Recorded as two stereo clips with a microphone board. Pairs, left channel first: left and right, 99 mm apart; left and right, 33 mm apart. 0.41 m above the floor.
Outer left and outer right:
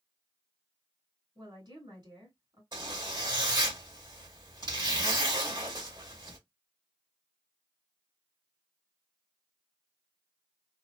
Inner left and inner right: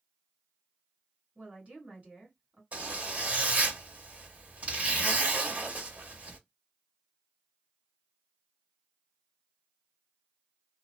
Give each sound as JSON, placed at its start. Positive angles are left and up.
{"t": 1.4, "sound": "a woman speaking", "side_deg": -45, "distance_m": 2.0}
{"t": 2.7, "sound": "a zipper", "side_deg": -45, "distance_m": 2.0}